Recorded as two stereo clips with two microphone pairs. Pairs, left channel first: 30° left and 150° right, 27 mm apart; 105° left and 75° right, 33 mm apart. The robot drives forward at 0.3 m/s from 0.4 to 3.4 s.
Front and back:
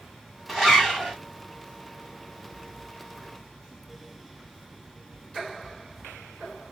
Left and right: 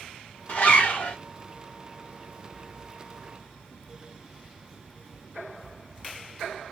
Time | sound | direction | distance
0.5 | a zipper | 115° left | 1.6 m